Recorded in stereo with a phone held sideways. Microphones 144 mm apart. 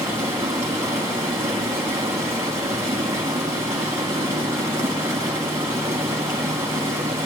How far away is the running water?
About 2.5 m.